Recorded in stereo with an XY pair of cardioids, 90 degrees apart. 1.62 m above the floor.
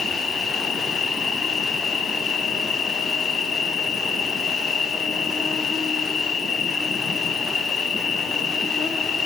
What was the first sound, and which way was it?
An insect, 55° left.